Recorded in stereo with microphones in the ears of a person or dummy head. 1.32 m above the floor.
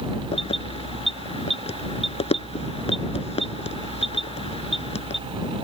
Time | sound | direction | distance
0.3 | keys jangling | 30° left (ahead or behind) | ?